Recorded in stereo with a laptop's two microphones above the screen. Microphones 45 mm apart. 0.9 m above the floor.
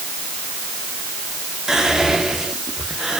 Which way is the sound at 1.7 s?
10° right (ahead or behind).